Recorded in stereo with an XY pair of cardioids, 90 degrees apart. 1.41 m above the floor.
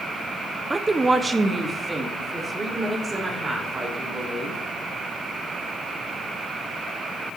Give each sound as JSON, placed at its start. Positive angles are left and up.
{"t": 0.7, "sound": "a woman speaking", "azimuth_deg": -20, "distance_m": 0.7}